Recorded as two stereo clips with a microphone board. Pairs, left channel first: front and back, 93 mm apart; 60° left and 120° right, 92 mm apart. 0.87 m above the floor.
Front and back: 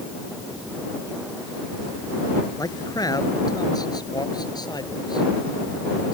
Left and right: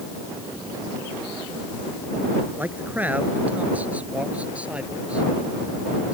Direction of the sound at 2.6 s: 50° right.